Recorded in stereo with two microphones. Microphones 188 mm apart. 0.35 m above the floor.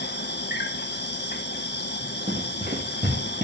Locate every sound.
0.0 s an insect: 65° left (ahead or behind), 1.3 m
2.3 s running footsteps: 65° right (ahead or behind), 5 m; by 3.4 s 60° right (ahead or behind), 6 m